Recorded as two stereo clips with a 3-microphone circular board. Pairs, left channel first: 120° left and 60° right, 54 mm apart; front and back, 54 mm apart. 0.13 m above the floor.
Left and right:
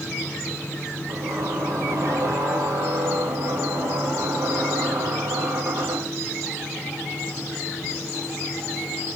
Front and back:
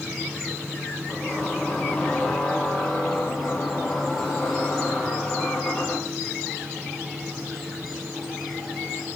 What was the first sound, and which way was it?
A squeak, 80° right.